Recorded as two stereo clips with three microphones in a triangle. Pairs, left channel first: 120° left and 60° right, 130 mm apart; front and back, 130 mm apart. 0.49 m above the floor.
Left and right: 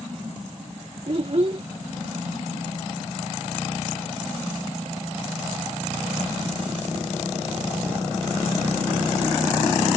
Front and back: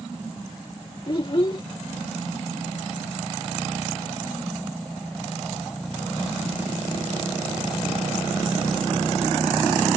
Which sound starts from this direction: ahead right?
A child speaking, at 1.1 s.